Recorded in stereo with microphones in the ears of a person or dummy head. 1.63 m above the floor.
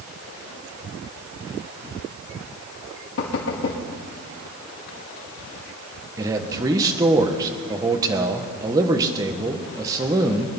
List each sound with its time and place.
3.2 s knocking: 70° left (ahead or behind), 2.5 m
6.2 s a man speaking: 20° right (ahead or behind), 1.3 m